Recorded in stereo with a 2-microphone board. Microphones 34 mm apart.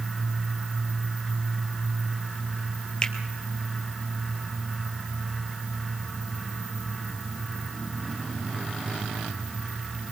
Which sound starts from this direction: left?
A finger snap, at 3.0 s.